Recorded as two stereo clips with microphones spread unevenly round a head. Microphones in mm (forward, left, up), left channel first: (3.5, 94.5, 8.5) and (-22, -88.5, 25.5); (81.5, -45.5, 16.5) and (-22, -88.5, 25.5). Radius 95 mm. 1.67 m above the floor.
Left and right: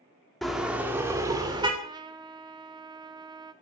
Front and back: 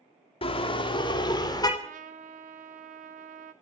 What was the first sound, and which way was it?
A car horn, 10° right.